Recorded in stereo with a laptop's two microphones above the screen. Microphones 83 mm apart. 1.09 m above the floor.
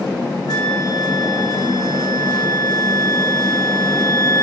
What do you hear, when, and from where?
0.5 s a flute: 55° left (ahead or behind), 3.5 m